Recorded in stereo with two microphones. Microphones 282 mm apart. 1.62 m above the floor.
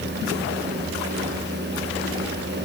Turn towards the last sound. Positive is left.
No sound to turn to.